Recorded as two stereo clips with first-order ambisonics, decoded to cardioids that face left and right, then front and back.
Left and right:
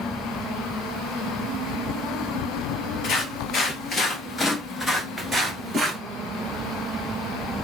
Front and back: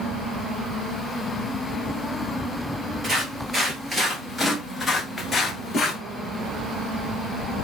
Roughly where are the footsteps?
Behind left.